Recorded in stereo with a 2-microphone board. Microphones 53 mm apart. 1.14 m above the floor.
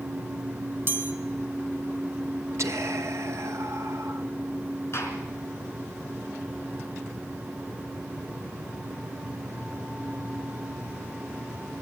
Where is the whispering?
65° right (ahead or behind), 1.8 m.